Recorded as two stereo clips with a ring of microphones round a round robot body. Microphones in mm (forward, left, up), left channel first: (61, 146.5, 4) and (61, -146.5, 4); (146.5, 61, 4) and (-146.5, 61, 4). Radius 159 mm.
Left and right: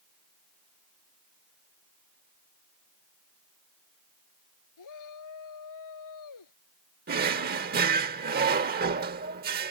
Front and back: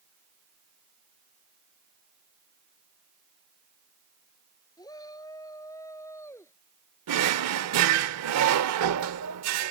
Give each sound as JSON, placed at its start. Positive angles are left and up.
{"t": 4.8, "sound": "a shout", "azimuth_deg": 75}
{"t": 7.1, "sound": "a drawer", "azimuth_deg": -150}